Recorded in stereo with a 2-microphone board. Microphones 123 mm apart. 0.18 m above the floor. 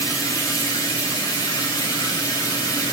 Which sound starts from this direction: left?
Running water, at 0.0 s.